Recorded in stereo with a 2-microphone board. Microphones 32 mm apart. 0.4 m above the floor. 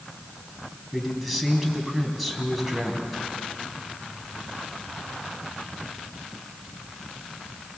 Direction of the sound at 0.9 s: Centre (ahead or behind).